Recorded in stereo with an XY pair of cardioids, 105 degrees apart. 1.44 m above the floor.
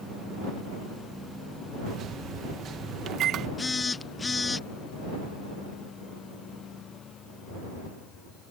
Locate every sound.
1.9 s a microwave: 65° right
3.6 s a phone buzzing: 25° left